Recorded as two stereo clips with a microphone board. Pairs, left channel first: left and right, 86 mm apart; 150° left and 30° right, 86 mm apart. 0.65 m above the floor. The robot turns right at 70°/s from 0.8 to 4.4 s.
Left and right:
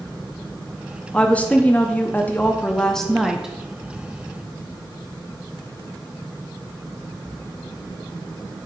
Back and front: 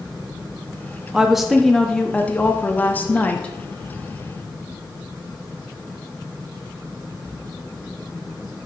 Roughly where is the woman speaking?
Ahead left.